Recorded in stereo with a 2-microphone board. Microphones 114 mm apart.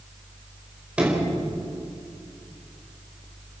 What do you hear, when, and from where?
1.0 s a sliding door: 10° right (ahead or behind), 5 m